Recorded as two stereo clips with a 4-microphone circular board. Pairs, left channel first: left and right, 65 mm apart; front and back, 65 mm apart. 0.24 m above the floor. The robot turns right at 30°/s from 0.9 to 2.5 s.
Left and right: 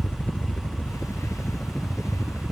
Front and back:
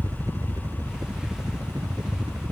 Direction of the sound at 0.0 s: 150° left.